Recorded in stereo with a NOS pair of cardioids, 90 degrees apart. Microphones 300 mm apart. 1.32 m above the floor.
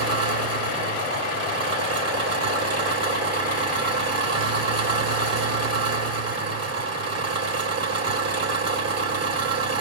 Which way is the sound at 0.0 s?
55° right.